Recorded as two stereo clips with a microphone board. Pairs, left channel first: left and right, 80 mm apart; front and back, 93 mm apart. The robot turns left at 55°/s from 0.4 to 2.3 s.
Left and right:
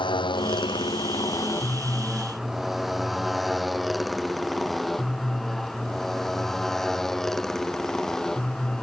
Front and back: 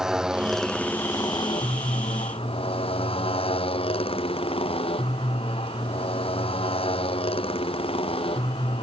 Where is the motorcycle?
95° left; by 8.8 s 5° left.